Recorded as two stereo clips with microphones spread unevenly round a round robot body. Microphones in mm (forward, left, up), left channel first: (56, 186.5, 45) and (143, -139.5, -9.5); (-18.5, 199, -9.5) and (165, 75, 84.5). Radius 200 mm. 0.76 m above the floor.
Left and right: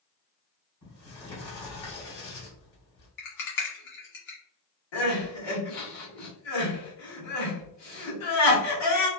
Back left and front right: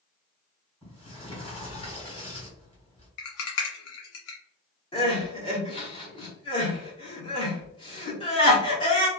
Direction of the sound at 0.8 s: 80° left.